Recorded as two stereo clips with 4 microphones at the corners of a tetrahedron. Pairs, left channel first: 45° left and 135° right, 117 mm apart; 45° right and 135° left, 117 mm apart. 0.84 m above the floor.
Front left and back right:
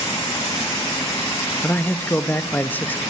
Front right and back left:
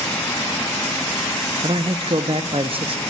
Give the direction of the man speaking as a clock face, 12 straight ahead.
8 o'clock.